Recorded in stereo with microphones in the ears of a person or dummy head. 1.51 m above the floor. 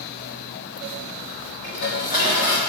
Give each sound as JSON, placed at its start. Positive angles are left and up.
{"t": 1.6, "sound": "dishes clattering", "side_deg": 70, "distance_m": 3.0}